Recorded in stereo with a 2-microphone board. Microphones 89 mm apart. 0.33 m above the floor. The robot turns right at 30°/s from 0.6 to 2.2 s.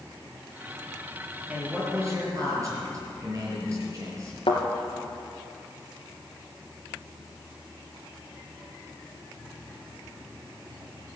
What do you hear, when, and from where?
1.5 s a man speaking: 15° right (ahead or behind), 5.5 m; by 4.4 s 40° right (ahead or behind), 5.5 m
4.5 s a thud: 75° left (ahead or behind), 2.5 m